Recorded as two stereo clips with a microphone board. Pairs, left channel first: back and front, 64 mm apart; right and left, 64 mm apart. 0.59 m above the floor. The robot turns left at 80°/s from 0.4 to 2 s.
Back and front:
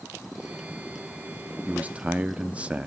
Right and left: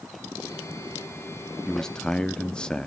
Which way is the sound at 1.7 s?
10° right.